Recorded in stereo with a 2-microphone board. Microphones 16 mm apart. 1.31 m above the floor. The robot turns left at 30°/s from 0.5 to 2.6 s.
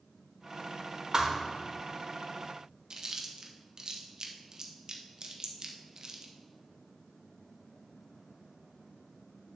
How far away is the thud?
About 1.1 m.